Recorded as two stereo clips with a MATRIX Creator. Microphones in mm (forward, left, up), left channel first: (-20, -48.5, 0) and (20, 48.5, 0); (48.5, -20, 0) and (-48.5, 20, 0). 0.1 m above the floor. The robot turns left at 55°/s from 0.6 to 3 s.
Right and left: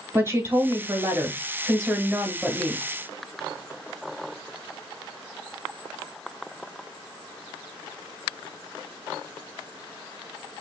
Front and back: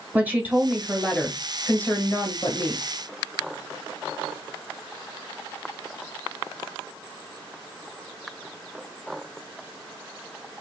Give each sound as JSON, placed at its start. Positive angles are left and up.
{"t": 0.1, "sound": "a woman speaking", "azimuth_deg": 100, "distance_m": 1.3}